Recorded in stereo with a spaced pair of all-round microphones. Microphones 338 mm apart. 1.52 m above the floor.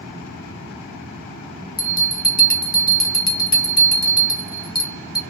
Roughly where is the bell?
Left.